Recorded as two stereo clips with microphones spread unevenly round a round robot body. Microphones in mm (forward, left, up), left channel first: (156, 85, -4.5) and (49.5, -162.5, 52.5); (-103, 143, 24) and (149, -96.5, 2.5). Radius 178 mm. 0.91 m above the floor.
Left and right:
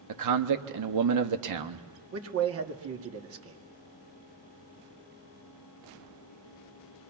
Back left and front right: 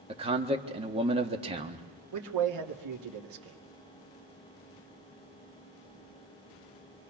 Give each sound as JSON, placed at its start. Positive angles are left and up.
{"t": 0.1, "sound": "a man speaking", "azimuth_deg": -115, "distance_m": 1.4}
{"t": 2.1, "sound": "a man speaking", "azimuth_deg": -80, "distance_m": 2.0}